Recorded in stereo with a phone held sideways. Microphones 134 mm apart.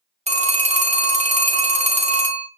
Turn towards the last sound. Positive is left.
turn(degrees=-60)  # may be behind; listen again after turning